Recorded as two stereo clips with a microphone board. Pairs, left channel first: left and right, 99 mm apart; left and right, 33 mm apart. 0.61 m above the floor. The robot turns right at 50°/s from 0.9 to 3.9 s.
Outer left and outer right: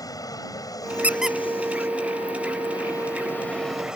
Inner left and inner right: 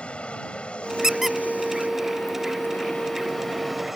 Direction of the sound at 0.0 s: 35° left (ahead or behind).